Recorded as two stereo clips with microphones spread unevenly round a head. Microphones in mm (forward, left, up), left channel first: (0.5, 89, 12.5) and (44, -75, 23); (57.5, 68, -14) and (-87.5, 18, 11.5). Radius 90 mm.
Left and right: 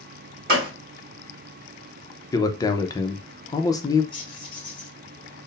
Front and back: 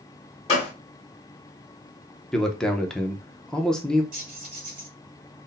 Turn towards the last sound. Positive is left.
turn(degrees=170)